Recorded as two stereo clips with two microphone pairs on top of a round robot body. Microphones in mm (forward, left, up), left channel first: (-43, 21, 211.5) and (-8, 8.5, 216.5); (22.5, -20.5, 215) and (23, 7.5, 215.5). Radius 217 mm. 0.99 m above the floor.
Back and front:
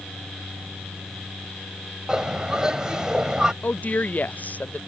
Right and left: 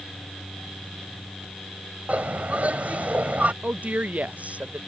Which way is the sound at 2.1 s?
50° left.